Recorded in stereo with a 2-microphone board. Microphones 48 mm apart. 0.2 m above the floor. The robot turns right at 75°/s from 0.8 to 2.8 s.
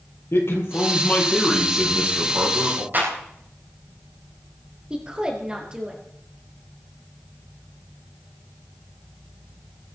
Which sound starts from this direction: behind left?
A man speaking, at 0.3 s.